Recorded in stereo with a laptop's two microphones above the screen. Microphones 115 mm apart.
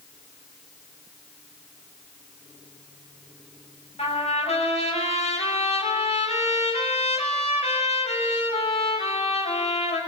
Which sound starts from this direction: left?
A trumpet, at 4.0 s.